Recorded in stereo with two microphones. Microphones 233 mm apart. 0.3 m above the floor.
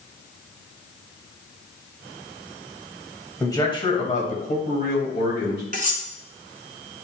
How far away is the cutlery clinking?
About 1.7 m.